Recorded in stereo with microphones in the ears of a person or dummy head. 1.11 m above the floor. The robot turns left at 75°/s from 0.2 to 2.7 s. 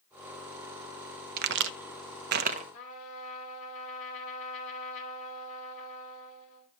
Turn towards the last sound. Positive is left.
turn(degrees=40)  # may be behind; listen again after turning